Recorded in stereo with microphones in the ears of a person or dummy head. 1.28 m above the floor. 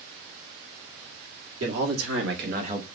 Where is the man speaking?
75° right (ahead or behind), 1.6 m; by 2.9 s 15° right (ahead or behind), 0.7 m.